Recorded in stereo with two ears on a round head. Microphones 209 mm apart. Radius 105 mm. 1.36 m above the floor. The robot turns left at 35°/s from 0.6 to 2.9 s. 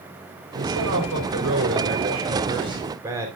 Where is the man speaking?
85° right, 4 m; by 3.3 s 165° right, 4 m.